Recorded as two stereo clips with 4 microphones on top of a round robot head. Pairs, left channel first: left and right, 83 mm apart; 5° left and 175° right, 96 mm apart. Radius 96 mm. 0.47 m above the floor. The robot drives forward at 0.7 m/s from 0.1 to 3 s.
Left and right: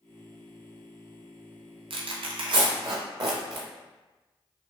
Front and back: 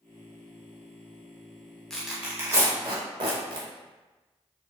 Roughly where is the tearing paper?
Right.